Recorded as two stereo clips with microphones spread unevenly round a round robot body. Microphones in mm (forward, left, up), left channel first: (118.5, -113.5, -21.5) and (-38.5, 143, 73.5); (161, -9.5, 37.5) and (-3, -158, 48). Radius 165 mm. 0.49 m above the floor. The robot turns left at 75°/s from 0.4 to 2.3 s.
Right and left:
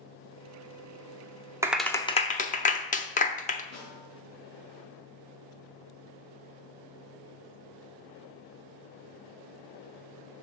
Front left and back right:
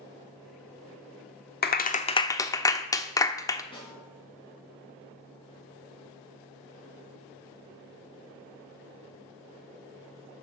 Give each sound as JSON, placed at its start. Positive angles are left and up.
{"t": 1.6, "sound": "a clap", "azimuth_deg": 25, "distance_m": 0.9}
{"t": 3.7, "sound": "a snare drum", "azimuth_deg": -25, "distance_m": 5.5}